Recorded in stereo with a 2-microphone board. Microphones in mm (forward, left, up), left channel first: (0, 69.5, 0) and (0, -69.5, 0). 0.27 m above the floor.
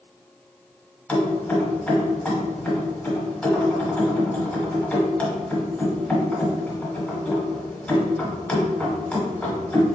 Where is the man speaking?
No man speaking in this recording.